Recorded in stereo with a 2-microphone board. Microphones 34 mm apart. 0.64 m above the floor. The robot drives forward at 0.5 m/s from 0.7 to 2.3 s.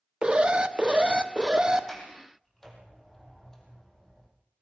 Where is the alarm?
30° right (ahead or behind), 1.1 m; by 1.9 s 25° right (ahead or behind), 1.4 m.